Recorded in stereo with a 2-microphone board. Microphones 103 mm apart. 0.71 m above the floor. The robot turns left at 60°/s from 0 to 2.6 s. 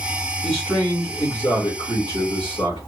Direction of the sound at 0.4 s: Straight behind.